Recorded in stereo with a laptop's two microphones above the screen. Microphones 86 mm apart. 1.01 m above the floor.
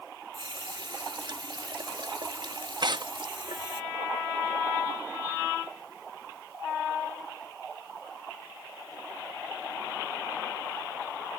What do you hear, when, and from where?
0.3 s a running tap: 70° right (ahead or behind)
2.8 s tearing paper: 60° right (ahead or behind)